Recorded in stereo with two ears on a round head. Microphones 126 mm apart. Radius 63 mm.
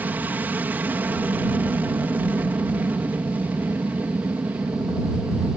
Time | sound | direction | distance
0.0 | an aircraft | 10° right (ahead or behind) | ?